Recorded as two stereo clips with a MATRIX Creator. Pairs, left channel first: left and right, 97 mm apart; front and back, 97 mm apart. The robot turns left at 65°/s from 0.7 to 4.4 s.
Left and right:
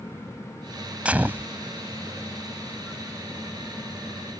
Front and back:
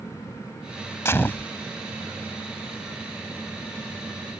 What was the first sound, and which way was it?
A gunshot, 25° right.